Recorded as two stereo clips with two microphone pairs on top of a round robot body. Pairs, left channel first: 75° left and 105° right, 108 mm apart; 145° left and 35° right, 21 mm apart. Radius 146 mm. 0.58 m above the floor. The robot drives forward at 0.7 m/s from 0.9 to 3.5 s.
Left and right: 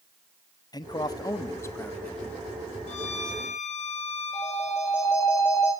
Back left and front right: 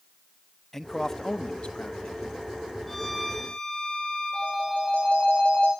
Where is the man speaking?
65° left, 0.9 m; by 2.4 s 145° left, 1.2 m.